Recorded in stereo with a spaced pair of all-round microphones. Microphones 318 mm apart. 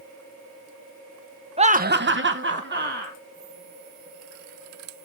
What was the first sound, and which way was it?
Laughter, 20° right (ahead or behind).